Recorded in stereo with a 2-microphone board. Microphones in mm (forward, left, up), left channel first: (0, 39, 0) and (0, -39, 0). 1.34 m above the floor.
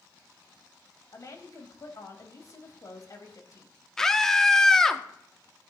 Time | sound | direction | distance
1.1 | a woman speaking | 50° left (ahead or behind) | 2 m
4.0 | a scream | 5° left (ahead or behind) | 0.9 m